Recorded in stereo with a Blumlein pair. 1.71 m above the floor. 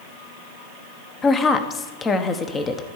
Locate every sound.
1.2 s a woman speaking: 20° left, 1.1 m